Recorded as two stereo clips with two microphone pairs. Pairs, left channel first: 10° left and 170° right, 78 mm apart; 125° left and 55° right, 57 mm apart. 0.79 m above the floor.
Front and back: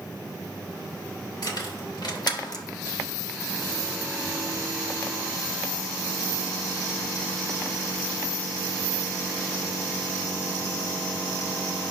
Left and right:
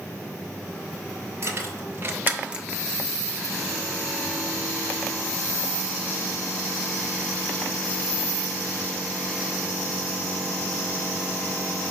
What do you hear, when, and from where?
1.4 s keys jangling: 20° right, 1.6 m; by 2.6 s 20° left, 0.6 m